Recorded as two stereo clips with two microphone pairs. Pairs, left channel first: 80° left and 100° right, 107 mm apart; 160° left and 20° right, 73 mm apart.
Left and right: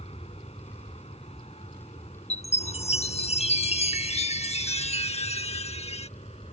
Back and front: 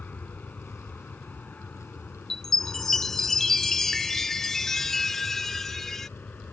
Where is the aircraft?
90° left.